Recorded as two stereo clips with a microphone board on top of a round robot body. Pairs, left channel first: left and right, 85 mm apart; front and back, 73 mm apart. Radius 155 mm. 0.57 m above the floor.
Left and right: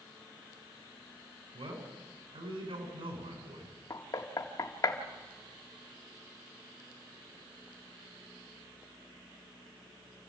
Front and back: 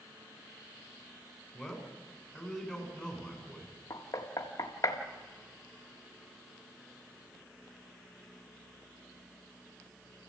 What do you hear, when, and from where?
1.5 s a man speaking: 90° right, 6.5 m
3.9 s knocking: 45° left, 1.6 m